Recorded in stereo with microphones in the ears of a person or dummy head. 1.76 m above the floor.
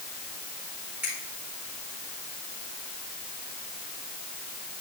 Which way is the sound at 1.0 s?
10° right (ahead or behind).